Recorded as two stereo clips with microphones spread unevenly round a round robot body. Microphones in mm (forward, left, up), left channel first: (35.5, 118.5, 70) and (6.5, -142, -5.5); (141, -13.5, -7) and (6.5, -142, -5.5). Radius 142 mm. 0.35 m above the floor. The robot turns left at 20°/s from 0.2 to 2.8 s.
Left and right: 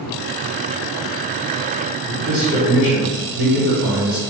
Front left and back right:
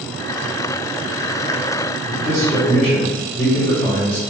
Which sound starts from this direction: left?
A man speaking, at 2.1 s.